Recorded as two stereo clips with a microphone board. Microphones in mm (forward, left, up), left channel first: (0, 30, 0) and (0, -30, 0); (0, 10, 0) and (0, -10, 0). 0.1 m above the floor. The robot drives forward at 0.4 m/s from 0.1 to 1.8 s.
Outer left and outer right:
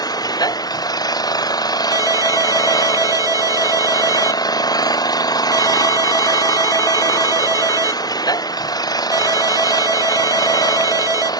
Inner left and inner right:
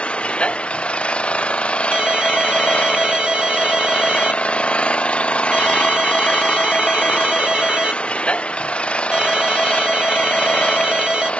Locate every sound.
0.0 s an engine running: 85° left
1.9 s a ringtone: 60° right (ahead or behind)